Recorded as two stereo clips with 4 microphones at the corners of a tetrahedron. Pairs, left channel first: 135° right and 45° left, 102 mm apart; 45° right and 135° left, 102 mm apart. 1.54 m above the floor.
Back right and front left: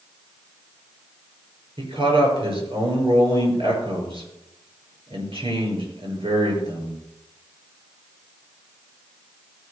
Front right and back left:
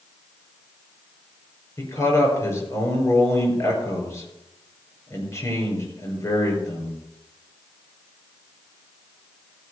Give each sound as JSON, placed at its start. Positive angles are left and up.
{"t": 1.8, "sound": "a man speaking", "azimuth_deg": 15, "distance_m": 5.5}